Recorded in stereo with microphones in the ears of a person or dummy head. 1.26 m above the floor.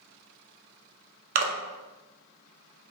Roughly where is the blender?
I don't hear a blender.